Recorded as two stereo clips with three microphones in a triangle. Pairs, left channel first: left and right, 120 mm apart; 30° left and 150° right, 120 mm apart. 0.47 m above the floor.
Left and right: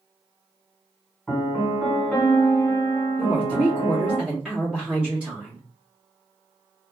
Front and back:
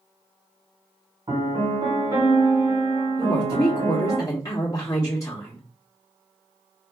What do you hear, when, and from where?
1.3 s a piano: 175° left, 1.8 m
3.2 s a woman speaking: 10° right, 0.9 m